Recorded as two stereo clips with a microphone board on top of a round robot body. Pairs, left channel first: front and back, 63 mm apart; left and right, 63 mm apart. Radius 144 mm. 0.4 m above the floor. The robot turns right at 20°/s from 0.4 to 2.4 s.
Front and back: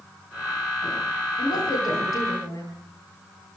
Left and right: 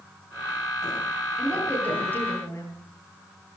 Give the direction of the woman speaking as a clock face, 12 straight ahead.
12 o'clock.